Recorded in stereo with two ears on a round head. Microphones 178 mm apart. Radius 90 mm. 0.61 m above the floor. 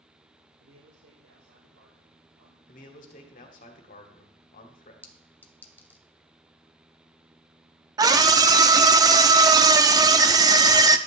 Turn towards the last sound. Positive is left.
turn(degrees=-20)  # may be behind; listen again after turning